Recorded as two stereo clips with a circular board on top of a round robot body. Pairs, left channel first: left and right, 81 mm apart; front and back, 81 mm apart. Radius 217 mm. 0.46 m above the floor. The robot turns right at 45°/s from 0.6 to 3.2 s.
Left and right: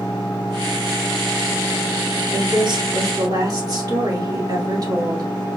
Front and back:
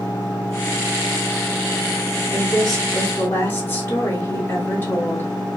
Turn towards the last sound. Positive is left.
turn(degrees=-60)